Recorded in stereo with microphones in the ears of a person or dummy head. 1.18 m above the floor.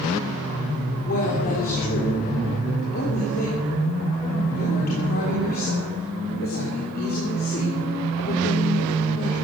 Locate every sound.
1.0 s a woman speaking: 50° left (ahead or behind), 3.5 m